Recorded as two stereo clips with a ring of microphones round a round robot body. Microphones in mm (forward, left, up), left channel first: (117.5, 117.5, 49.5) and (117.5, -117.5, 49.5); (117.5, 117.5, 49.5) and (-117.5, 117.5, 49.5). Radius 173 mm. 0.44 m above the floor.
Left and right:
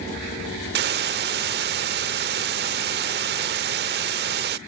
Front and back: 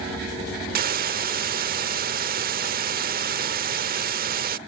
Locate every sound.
0.8 s a hiss: 130° right